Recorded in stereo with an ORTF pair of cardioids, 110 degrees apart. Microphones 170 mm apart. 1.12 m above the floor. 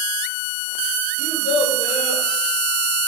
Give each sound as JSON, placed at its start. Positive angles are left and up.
{"t": 1.2, "sound": "a child speaking", "azimuth_deg": 40, "distance_m": 3.5}